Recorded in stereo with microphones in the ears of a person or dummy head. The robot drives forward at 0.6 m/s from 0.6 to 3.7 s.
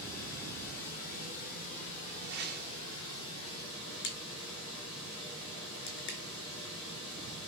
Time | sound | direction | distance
0.0 | running water | 50° left (ahead or behind) | 4 m
2.2 | a whoosh | 60° right (ahead or behind) | 1.3 m
4.0 | a crack | 65° left (ahead or behind) | 3.5 m